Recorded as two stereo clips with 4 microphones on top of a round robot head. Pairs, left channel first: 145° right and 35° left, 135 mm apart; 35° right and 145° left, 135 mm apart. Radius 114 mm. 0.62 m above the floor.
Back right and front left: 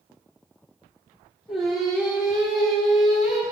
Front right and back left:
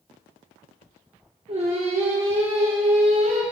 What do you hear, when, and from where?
1.5 s singing: 120° left, 1.7 m